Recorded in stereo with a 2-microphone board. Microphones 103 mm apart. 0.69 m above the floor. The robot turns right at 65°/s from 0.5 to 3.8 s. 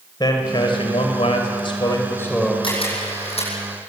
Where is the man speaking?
45° left, 3 m; by 2.5 s straight behind, 3 m.